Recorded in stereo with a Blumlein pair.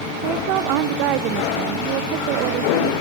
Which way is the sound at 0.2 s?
40° right.